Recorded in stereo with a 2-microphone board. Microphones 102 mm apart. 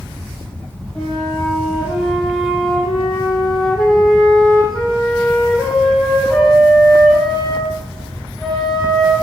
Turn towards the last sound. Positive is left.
turn(degrees=0)  # may be behind; listen again after turning